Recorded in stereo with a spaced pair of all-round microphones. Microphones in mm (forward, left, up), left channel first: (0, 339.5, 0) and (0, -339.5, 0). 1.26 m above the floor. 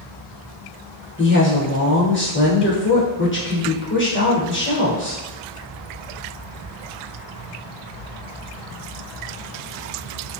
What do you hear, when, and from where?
1.2 s a woman speaking: 15° left (ahead or behind), 0.9 m